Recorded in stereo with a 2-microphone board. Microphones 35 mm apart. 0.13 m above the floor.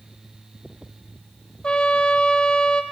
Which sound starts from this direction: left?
A trumpet, at 1.6 s.